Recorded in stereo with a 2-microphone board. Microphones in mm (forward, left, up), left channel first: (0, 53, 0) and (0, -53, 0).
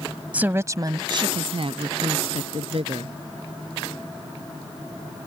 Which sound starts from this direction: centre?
A woman speaking, at 0.3 s.